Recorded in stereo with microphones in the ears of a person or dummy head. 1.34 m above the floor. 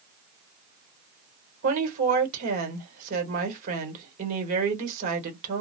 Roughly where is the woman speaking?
Right.